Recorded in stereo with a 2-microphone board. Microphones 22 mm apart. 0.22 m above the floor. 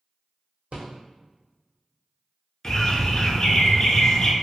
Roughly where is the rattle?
Right.